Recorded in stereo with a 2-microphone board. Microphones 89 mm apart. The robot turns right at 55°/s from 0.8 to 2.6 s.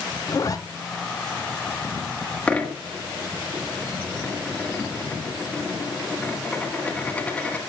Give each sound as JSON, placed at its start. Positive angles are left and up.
{"t": 0.3, "sound": "a zipper", "side_deg": 40, "distance_m": 0.8}
{"t": 2.5, "sound": "a dropped coin", "side_deg": 15, "distance_m": 1.5}